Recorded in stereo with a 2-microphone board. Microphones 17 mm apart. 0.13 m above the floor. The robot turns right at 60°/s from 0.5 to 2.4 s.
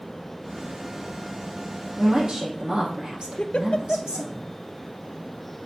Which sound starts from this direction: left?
A giggle, at 3.4 s.